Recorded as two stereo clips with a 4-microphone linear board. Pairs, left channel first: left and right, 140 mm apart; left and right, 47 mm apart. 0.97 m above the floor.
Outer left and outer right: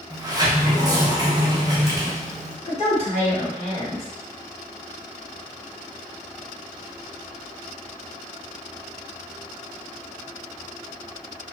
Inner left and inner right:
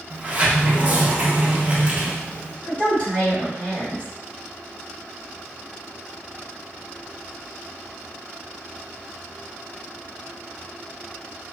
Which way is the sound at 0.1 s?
25° right (ahead or behind).